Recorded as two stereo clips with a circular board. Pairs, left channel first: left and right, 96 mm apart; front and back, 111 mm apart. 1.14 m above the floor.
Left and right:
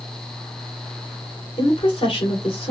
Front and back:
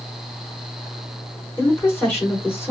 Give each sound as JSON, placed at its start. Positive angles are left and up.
{"t": 1.6, "sound": "a woman speaking", "azimuth_deg": 70, "distance_m": 2.5}